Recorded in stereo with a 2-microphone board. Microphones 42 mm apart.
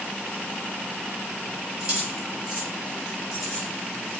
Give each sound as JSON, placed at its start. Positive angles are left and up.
{"t": 1.8, "sound": "keys jangling", "side_deg": -20, "distance_m": 2.5}